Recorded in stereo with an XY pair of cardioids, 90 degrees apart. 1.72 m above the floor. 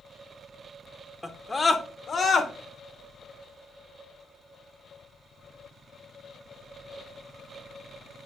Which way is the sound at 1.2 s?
10° left.